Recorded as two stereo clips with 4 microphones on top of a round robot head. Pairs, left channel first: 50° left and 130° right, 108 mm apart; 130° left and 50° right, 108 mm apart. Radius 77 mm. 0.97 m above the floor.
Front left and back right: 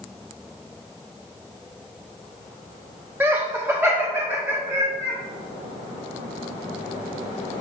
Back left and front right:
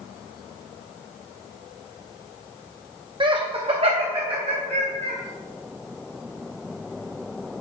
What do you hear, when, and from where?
3.2 s laughter: 65° right, 0.7 m; by 5.2 s 60° right, 1.7 m